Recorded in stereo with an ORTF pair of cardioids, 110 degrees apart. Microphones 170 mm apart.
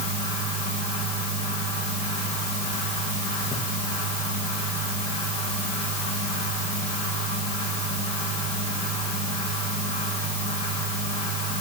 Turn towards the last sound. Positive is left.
turn(degrees=40)